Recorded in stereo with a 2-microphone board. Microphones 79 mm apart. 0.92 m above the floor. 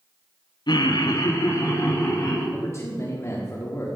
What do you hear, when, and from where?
0.7 s laughter: 65° left (ahead or behind), 0.8 m; by 2.4 s 40° left (ahead or behind), 3 m
2.5 s a man speaking: 35° left (ahead or behind), 1.6 m